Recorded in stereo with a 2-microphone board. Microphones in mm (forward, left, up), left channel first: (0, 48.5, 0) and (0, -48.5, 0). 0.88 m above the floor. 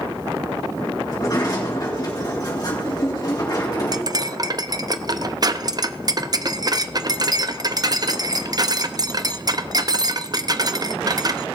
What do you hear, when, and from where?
1.1 s a sliding door: 40° left (ahead or behind), 4 m
3.9 s cutlery clinking: 40° right (ahead or behind), 0.6 m